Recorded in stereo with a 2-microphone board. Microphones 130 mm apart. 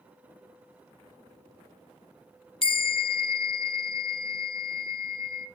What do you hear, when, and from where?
2.6 s a bell: 45° left (ahead or behind), 0.6 m